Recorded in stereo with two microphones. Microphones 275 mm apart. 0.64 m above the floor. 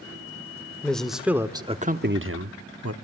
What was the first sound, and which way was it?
A man speaking, 5° left (ahead or behind).